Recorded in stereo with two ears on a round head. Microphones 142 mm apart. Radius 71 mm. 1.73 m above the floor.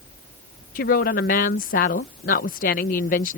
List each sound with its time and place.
0.8 s a woman speaking: 55° left (ahead or behind)